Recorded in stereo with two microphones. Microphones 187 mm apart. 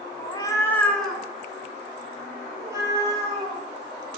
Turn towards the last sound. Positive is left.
turn(degrees=-20)  # may be behind; listen again after turning